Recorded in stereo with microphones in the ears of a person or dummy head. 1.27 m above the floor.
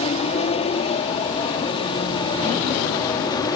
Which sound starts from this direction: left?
An aircraft, at 0.0 s.